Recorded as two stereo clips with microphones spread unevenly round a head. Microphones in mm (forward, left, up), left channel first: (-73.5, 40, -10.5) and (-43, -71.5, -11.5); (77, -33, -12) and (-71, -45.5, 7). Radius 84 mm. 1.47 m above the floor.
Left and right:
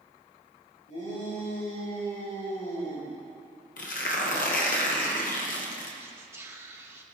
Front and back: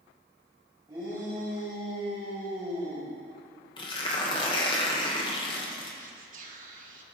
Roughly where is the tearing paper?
Left.